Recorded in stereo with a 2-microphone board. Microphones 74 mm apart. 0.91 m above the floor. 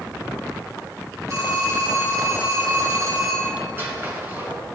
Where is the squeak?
30° right (ahead or behind), 2.5 m.